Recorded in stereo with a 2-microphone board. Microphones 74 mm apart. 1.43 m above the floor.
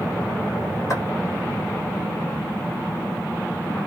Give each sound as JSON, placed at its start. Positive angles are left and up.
{"t": 0.9, "sound": "footsteps", "side_deg": 45, "distance_m": 2.0}